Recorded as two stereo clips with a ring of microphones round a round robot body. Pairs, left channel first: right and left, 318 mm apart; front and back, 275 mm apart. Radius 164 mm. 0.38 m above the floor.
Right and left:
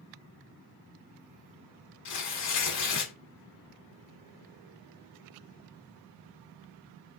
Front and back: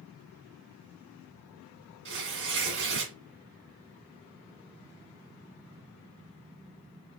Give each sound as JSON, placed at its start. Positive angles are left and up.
{"t": 2.0, "sound": "tearing paper", "azimuth_deg": -125, "distance_m": 2.0}